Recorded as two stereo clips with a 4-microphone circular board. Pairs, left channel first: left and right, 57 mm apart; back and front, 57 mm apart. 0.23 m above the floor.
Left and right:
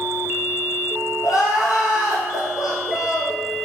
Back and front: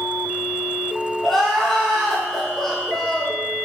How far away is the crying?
About 2.5 m.